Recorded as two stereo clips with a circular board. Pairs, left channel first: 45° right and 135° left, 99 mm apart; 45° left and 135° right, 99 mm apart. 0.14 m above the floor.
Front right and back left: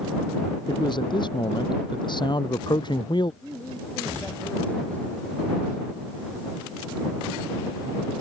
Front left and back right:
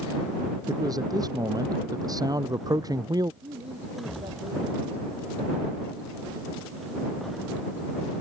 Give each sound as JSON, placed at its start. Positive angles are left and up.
{"t": 0.7, "sound": "a man speaking", "azimuth_deg": -85}
{"t": 3.4, "sound": "a man speaking", "azimuth_deg": -120}